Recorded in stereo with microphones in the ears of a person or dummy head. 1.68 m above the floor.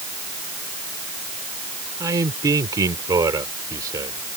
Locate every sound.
2.0 s a man speaking: 20° right (ahead or behind)